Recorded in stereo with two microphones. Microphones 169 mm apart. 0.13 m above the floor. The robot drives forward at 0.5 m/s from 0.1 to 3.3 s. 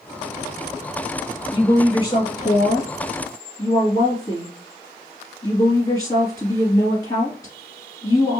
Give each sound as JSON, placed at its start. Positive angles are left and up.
{"t": 1.5, "sound": "a woman speaking", "side_deg": 25, "distance_m": 2.0}